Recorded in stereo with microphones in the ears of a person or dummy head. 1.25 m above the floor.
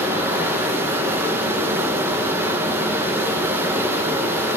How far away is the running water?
About 1.0 m.